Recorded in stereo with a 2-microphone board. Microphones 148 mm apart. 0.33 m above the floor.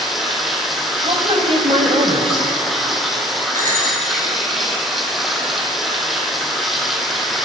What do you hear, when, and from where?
0.0 s running water: centre (ahead or behind), 1.5 m
1.0 s a woman speaking: 45° right (ahead or behind), 1.6 m
3.5 s a bicycle bell: 65° right (ahead or behind), 4 m